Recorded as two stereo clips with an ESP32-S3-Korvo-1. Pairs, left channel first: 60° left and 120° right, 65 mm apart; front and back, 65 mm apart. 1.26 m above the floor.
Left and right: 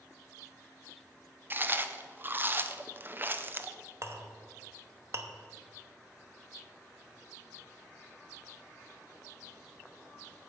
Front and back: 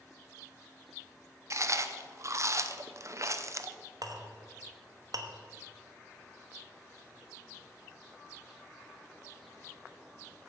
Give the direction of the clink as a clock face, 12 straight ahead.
5 o'clock.